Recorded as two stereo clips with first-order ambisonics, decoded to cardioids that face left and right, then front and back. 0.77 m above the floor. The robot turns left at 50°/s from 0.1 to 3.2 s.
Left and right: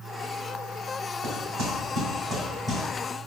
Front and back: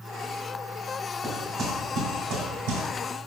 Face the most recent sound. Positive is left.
turn(degrees=155)